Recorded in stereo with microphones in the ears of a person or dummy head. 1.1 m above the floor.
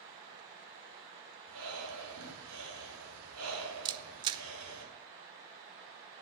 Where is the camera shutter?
25° right (ahead or behind), 0.6 m.